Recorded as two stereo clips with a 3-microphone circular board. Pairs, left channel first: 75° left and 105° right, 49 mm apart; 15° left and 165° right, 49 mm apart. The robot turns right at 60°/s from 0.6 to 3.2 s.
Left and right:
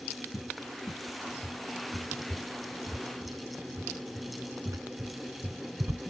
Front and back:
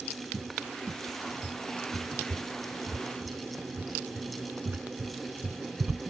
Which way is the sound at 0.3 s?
90° left.